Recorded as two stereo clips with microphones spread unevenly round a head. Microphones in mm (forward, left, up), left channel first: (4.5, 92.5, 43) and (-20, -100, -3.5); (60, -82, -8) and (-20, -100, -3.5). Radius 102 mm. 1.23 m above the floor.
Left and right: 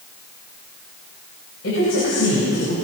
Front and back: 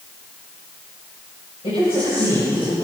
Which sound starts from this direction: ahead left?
A woman speaking, at 1.6 s.